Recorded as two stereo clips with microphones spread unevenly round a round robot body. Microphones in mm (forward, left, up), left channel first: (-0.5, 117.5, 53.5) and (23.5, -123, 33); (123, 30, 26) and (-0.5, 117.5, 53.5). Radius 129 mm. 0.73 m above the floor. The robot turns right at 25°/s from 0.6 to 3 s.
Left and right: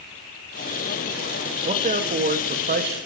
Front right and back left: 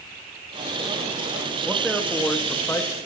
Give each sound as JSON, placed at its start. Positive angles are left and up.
{"t": 1.6, "sound": "a man speaking", "azimuth_deg": -120, "distance_m": 1.2}